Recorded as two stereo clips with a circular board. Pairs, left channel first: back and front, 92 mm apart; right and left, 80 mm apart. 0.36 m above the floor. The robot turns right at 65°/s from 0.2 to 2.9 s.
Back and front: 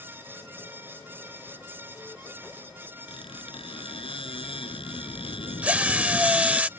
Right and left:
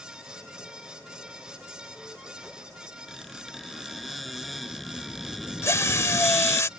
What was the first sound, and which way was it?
A squeak, straight behind.